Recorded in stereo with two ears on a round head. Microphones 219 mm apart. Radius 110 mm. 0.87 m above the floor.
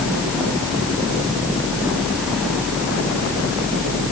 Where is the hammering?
I don't hear hammering.